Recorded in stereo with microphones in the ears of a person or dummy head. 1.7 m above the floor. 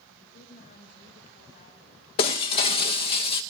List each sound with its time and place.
0.1 s a woman speaking: 40° left (ahead or behind), 6.5 m
2.2 s breaking glass: 30° left (ahead or behind), 1.0 m